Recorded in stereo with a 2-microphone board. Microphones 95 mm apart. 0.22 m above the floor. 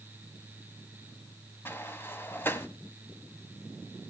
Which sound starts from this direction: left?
A sliding door, at 1.6 s.